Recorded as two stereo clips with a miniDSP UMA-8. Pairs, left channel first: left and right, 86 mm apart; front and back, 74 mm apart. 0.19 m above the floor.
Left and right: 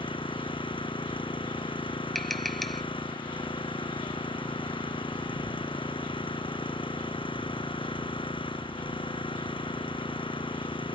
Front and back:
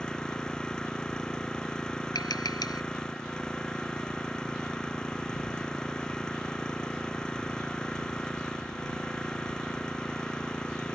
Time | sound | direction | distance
0.0 | an engine running | 80° left | ?
2.1 | tapping | straight ahead | ?